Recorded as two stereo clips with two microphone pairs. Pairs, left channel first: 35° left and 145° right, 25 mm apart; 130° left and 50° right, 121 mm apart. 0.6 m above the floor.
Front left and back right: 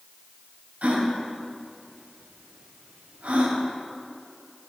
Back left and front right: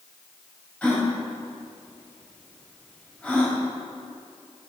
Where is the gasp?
150° right, 1.6 m.